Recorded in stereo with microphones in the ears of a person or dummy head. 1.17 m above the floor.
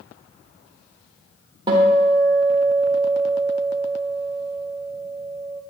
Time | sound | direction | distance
1.7 | a guitar | 30° right (ahead or behind) | 1.2 m